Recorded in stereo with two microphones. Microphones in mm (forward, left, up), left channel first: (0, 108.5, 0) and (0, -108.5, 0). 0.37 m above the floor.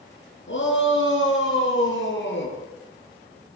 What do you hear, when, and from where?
0.5 s a shout: 65° left (ahead or behind), 5.5 m; by 2.6 s 60° left (ahead or behind), 7 m